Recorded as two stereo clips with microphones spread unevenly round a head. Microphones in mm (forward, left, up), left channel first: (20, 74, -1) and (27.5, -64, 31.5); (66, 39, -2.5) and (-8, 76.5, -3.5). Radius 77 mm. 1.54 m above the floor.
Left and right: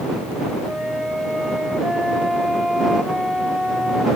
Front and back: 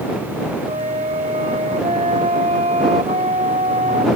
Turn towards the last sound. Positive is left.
turn(degrees=-175)